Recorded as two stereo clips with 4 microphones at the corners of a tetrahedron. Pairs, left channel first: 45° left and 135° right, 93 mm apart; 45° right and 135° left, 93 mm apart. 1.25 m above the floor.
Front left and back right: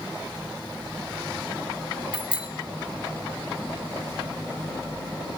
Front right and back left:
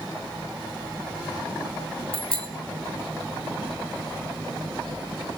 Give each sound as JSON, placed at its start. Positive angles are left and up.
{"t": 2.1, "sound": "a bicycle bell", "azimuth_deg": -60, "distance_m": 3.5}